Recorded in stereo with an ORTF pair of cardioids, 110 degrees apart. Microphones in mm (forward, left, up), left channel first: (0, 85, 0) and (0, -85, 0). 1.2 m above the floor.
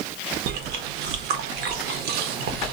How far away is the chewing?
About 0.7 m.